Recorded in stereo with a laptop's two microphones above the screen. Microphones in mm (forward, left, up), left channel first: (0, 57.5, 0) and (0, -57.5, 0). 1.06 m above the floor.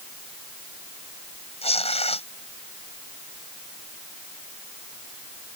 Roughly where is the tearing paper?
Left.